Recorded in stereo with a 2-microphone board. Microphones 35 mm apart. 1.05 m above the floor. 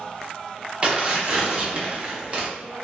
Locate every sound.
0.8 s tearing paper: 30° right (ahead or behind), 0.7 m